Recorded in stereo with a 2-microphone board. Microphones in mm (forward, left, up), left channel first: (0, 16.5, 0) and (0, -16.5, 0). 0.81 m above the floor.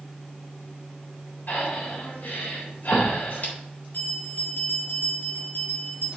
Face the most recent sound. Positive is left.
turn(degrees=70)  # may be behind; listen again after turning